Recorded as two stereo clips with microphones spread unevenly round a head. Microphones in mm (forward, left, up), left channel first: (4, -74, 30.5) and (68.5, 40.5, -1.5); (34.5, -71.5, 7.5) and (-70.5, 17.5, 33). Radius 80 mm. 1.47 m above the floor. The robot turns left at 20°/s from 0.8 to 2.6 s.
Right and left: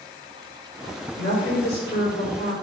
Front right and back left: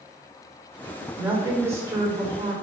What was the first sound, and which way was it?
A woman speaking, 140° right.